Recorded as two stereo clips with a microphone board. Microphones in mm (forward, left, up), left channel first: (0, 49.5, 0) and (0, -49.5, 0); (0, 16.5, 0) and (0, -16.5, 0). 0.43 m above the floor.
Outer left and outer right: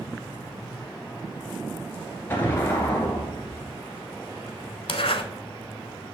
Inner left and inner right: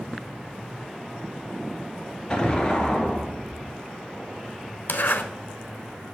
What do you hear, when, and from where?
2.3 s an explosion: 20° left (ahead or behind), 1.5 m
4.9 s a zipper: 75° left (ahead or behind), 0.7 m